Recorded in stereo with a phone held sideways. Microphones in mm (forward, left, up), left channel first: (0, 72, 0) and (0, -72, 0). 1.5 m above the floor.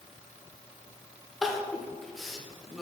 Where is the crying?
Centre (ahead or behind), 0.8 m.